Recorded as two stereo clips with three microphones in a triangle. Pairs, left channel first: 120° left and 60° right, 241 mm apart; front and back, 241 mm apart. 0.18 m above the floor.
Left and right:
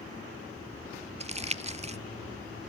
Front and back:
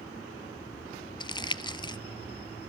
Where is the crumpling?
45° right, 0.5 m.